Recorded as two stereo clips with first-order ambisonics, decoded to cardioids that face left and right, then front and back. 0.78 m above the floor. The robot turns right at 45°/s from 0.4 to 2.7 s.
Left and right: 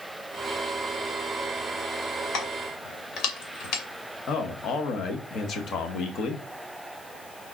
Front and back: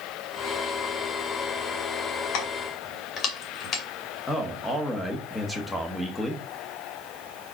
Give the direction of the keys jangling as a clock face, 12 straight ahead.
11 o'clock.